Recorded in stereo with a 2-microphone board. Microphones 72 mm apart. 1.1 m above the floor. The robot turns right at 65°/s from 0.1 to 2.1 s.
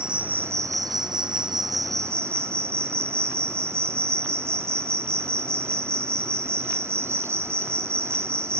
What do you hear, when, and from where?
0.0 s an insect: 170° right, 0.8 m; by 8.6 s 40° right, 0.8 m